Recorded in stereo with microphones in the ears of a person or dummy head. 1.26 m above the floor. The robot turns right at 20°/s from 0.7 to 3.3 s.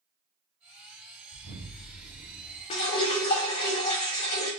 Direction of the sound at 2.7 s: 20° left (ahead or behind).